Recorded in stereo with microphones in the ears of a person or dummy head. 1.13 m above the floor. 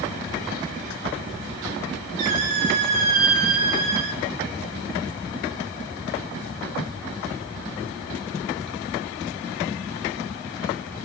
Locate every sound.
2.2 s a squeak: 45° right (ahead or behind), 1.5 m